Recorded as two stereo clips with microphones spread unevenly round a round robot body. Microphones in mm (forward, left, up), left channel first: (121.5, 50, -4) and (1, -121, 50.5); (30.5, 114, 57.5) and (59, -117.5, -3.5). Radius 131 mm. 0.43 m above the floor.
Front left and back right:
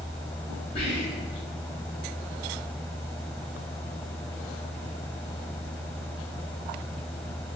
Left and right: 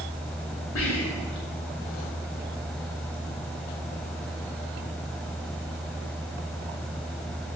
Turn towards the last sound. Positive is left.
turn(degrees=85)